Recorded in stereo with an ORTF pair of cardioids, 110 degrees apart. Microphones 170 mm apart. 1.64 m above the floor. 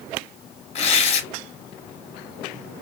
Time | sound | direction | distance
0.8 | tearing paper | 40° left | 1.1 m